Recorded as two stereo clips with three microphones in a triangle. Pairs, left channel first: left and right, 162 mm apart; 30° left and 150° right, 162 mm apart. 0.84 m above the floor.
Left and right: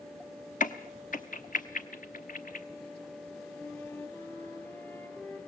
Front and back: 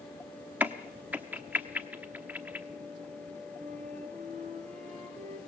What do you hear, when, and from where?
0.6 s a crack: 130° left, 0.9 m
3.5 s a flute: 165° left, 2.5 m